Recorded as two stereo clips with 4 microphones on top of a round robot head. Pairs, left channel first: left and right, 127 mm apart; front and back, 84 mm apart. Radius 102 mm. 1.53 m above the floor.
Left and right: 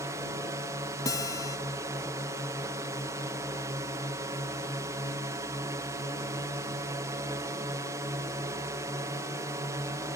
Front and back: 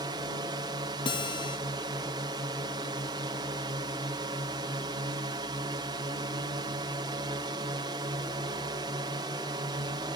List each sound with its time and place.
0.0 s a drone: 155° right
1.1 s a guitar: 25° left